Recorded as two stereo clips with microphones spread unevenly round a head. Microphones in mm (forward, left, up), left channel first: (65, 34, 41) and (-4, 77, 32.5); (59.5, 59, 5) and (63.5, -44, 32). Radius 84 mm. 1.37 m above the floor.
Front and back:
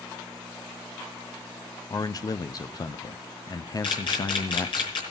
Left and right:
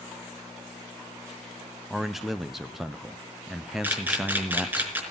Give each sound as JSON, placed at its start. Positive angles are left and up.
{"t": 1.9, "sound": "a man speaking", "azimuth_deg": 10, "distance_m": 0.8}
{"t": 3.8, "sound": "a camera shutter", "azimuth_deg": -20, "distance_m": 4.5}